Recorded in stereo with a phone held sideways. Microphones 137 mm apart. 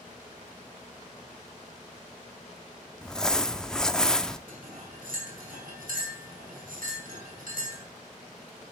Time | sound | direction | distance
3.0 | crumpling | 5° left (ahead or behind) | 0.5 m
4.5 | cutlery clinking | 80° right | 4.5 m